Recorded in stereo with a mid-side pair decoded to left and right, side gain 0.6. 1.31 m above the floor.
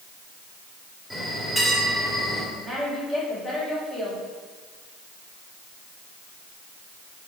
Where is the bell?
Straight ahead, 3 m.